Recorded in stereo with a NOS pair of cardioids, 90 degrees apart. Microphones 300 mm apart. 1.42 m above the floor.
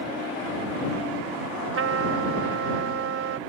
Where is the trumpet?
50° right.